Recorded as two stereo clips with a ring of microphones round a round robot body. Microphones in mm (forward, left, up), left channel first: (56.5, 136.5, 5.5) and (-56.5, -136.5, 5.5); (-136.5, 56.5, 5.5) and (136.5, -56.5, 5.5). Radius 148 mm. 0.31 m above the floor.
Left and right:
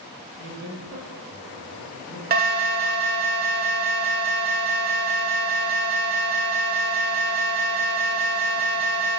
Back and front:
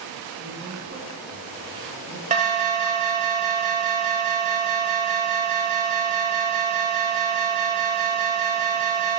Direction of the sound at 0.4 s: 75° right.